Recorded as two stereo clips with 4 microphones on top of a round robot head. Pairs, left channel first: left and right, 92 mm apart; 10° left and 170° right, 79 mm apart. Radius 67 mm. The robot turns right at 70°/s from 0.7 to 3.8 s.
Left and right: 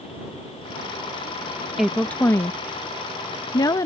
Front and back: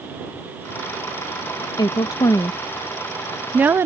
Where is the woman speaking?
5° right; by 3.9 s 135° left.